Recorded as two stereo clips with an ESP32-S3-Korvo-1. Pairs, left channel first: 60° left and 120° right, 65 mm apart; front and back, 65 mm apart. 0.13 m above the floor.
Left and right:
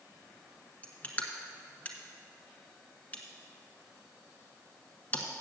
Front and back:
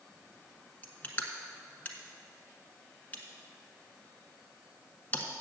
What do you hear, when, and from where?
0.8 s crushing: 30° left, 1.2 m